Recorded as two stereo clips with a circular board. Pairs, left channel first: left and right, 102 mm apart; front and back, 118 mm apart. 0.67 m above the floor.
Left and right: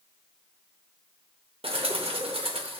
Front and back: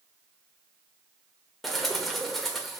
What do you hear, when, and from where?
1.6 s a bird: 90° right, 0.7 m